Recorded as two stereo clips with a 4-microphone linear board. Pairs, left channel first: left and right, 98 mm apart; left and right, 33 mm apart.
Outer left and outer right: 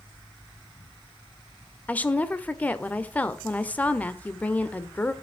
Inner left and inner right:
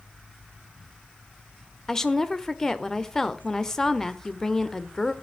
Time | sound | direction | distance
1.9 | a woman speaking | 15° left (ahead or behind) | 0.8 m